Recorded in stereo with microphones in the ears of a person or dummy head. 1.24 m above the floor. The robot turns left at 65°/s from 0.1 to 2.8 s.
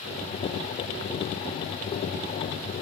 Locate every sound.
Only background noise.